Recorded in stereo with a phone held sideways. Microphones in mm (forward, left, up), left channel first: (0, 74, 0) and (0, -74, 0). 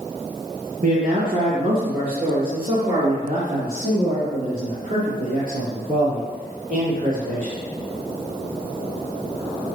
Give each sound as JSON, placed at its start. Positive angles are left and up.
{"t": 0.8, "sound": "a man speaking", "side_deg": -65, "distance_m": 1.6}